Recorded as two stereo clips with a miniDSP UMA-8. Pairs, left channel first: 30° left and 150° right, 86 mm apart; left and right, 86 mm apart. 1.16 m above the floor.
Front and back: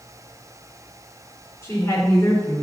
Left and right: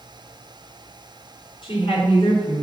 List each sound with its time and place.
1.6 s a woman speaking: 85° left, 4 m